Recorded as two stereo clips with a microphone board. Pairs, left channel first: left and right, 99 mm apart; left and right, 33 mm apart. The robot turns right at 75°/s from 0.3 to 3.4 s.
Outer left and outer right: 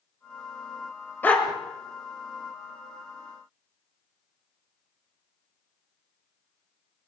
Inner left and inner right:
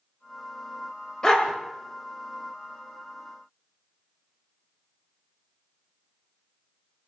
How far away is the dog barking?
About 1.7 m.